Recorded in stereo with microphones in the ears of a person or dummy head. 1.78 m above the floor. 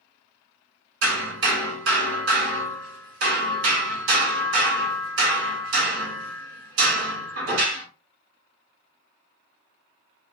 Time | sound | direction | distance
1.0 | hammering | 65° right (ahead or behind) | 2 m